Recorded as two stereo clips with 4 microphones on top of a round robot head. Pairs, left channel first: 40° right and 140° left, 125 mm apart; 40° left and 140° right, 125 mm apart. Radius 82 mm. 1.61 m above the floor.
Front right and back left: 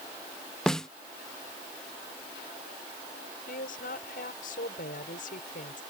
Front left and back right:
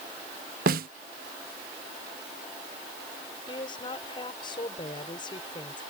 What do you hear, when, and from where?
0.7 s a snare drum: 125° right
3.5 s a woman speaking: 15° right